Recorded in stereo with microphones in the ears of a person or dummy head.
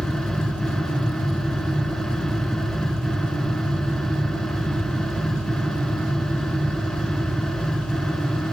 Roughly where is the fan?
Centre.